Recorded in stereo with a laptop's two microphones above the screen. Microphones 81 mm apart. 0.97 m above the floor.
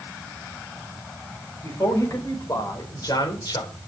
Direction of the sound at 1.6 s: 40° left (ahead or behind).